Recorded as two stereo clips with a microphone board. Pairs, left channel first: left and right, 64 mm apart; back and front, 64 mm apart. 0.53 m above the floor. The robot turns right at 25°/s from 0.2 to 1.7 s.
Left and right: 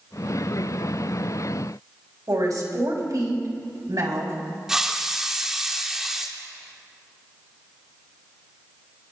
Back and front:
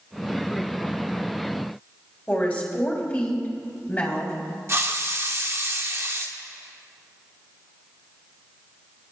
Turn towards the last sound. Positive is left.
turn(degrees=-10)